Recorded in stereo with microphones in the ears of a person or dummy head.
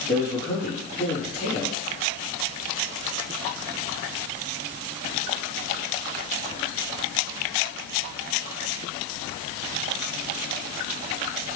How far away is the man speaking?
About 1.8 m.